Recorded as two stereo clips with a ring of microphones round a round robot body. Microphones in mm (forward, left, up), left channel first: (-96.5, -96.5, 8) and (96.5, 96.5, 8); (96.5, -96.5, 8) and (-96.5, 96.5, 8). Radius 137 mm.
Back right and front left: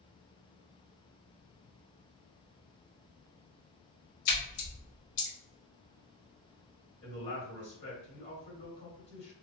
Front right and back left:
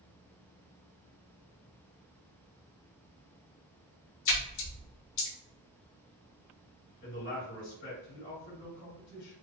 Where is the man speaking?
90° right, 1.6 m.